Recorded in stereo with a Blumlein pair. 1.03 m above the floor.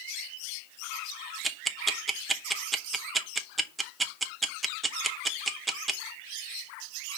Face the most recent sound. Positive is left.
turn(degrees=-10)